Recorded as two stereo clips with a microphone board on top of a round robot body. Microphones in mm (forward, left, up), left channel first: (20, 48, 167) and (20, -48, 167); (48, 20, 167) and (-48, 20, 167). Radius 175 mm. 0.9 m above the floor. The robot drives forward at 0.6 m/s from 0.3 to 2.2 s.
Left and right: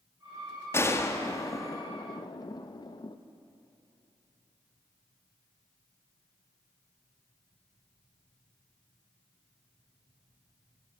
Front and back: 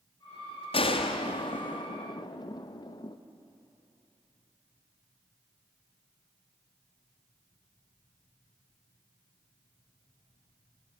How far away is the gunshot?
About 1.9 m.